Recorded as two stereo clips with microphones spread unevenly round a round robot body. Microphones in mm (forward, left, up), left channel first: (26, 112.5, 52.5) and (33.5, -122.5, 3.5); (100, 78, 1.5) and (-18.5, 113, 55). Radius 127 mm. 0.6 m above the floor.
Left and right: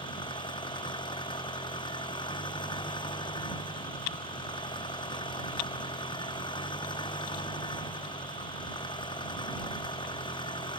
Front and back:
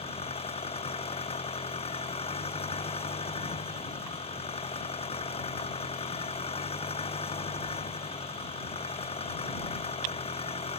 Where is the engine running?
20° left.